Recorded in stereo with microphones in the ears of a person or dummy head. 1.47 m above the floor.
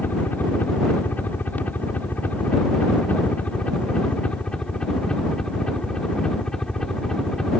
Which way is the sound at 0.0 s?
10° left (ahead or behind).